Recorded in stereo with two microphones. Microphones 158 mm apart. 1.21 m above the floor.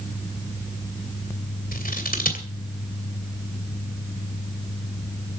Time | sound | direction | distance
1.7 | scissors | 65° left (ahead or behind) | 2.5 m